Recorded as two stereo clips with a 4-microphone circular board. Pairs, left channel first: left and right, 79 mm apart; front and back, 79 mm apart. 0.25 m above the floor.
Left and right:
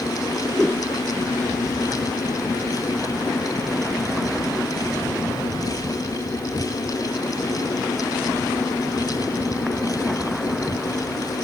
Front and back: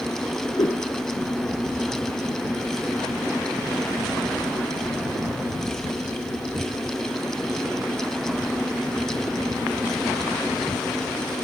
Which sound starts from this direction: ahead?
A whoosh, at 0.6 s.